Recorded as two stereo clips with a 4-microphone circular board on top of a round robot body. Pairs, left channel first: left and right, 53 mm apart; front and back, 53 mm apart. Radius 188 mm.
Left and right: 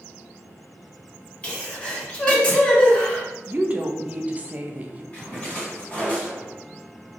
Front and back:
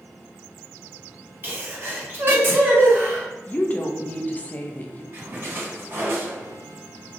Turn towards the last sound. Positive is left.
turn(degrees=150)